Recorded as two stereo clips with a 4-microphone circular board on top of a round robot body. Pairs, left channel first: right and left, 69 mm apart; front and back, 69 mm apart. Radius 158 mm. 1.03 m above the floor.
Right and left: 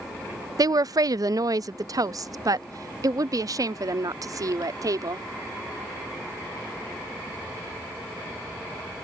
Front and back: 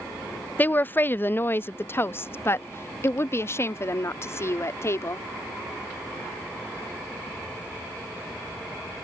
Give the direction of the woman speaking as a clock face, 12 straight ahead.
10 o'clock.